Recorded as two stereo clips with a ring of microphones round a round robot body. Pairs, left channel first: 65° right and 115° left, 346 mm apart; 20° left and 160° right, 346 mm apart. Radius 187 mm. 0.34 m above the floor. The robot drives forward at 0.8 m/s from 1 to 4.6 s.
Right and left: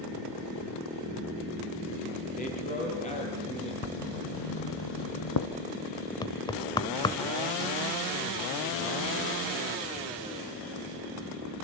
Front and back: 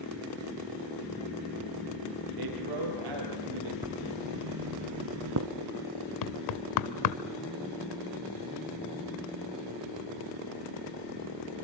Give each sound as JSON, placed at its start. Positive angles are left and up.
{"t": 2.4, "sound": "a man speaking", "azimuth_deg": -135, "distance_m": 8.5}
{"t": 3.8, "sound": "writing", "azimuth_deg": -70, "distance_m": 1.0}
{"t": 6.2, "sound": "knocking", "azimuth_deg": 10, "distance_m": 1.0}